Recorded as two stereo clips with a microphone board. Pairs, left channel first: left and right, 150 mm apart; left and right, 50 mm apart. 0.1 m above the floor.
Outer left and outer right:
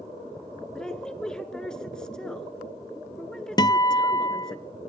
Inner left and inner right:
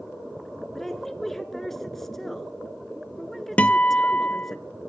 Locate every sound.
0.8 s a woman speaking: 5° left (ahead or behind), 1.1 m
3.6 s a guitar: 30° left (ahead or behind), 0.5 m